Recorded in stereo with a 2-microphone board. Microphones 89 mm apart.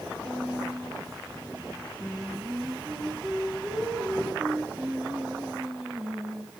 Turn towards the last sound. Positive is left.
turn(degrees=-10)  # may be behind; listen again after turning